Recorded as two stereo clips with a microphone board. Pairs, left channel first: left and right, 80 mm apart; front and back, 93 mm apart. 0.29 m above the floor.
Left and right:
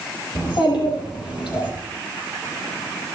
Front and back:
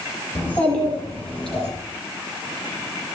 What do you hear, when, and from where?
0.3 s a child speaking: 70° left, 7.5 m; by 1.7 s 85° left, 7 m